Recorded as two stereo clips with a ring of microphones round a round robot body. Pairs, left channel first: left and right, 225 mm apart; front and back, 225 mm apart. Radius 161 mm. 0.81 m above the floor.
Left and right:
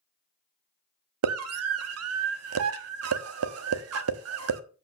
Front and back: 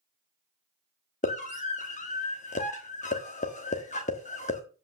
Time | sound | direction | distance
1.2 | a scream | 65° right | 1.2 m